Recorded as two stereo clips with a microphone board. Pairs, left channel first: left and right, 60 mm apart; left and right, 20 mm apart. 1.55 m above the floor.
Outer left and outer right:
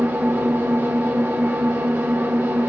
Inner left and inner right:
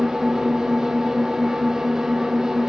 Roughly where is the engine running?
Right.